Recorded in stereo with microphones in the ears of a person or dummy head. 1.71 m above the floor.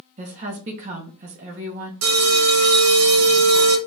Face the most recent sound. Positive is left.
turn(degrees=-80)